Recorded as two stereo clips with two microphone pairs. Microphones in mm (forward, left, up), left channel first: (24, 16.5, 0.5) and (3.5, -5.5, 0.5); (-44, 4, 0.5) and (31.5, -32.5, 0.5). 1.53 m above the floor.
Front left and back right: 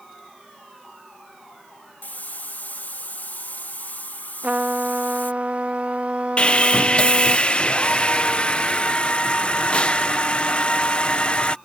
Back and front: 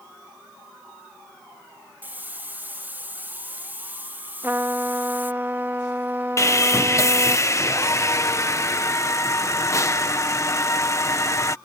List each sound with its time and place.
2.0 s a hiss: 40° left
4.4 s a trumpet: 90° right
6.4 s sawing: 100° left